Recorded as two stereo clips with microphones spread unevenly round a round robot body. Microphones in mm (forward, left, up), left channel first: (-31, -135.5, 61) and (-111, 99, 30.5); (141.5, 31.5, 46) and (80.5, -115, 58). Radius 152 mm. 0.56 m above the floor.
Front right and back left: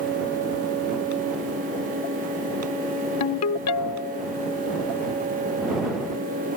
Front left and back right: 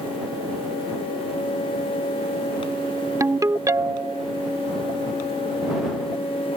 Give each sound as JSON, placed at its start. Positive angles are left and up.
{"t": 3.2, "sound": "a ringtone", "azimuth_deg": -40}